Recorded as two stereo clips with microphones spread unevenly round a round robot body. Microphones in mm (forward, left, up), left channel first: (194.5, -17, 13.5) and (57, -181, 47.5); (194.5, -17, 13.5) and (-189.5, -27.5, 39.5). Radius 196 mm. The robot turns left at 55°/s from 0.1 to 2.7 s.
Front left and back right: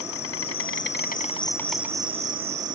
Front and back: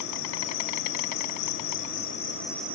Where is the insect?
50° left; by 2.8 s 95° right.